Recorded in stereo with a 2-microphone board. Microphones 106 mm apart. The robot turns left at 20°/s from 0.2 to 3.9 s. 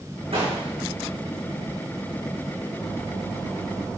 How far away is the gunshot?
About 5.5 m.